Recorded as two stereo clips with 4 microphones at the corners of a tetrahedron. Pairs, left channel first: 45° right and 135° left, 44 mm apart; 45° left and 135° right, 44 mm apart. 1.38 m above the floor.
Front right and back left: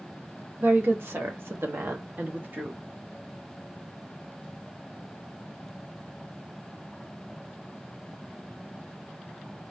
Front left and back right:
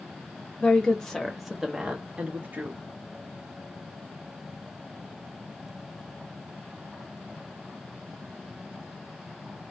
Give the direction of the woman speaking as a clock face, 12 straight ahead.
8 o'clock.